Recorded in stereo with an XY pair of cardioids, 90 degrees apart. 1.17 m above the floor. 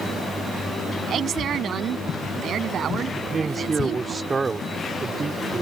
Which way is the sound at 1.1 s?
65° right.